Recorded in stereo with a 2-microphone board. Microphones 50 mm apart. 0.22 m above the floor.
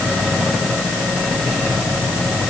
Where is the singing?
I don't hear singing.